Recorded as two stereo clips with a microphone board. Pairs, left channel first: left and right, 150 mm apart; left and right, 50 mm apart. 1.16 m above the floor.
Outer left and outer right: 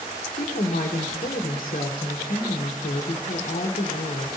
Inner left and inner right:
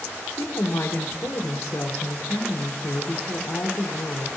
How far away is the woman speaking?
About 1.2 m.